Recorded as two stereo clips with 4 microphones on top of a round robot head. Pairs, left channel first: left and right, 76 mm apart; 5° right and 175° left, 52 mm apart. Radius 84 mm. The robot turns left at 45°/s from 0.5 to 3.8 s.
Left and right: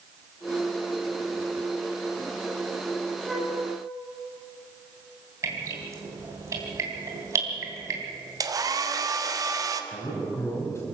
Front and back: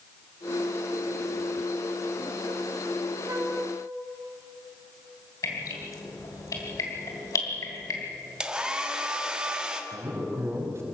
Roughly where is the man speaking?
Behind left.